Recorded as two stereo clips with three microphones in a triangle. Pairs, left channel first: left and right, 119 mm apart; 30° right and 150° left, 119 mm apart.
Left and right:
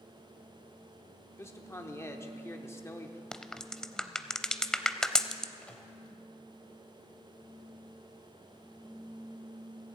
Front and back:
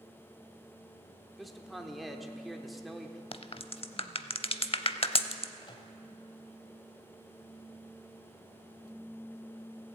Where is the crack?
5° left, 0.5 m.